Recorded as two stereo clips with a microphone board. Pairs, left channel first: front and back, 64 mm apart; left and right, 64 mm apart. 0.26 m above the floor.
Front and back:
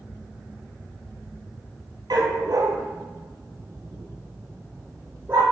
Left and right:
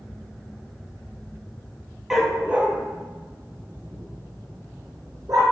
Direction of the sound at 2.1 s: 175° right.